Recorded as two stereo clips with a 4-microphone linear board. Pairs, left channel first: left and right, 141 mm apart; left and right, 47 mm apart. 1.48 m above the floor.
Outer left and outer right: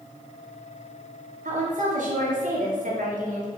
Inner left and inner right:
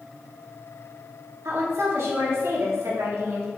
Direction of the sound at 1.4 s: 70° right (ahead or behind).